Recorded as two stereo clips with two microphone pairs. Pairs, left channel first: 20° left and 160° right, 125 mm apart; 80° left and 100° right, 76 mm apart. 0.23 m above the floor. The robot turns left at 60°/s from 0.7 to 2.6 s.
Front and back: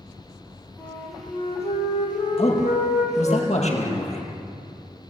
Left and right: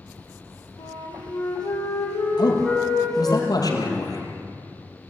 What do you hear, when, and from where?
0.8 s a flute: 105° left, 6 m; by 3.4 s 5° right, 6 m
2.4 s a man speaking: 55° left, 5.5 m; by 4.2 s 45° left, 5.5 m